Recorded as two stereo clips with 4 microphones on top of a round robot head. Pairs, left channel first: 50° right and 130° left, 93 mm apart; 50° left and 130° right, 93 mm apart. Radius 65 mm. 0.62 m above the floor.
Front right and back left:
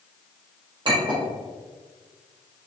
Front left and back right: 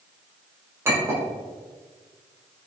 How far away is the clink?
About 1.5 m.